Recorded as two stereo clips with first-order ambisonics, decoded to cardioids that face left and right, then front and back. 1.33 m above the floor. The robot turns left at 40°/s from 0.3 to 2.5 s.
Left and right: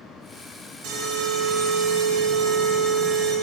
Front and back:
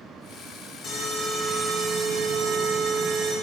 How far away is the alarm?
About 1.4 m.